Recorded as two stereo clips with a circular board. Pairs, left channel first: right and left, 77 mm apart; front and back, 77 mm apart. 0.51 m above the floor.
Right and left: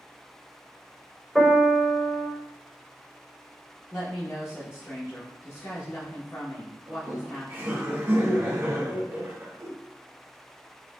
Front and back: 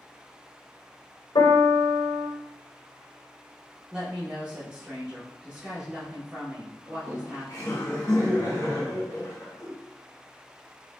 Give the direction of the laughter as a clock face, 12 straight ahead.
11 o'clock.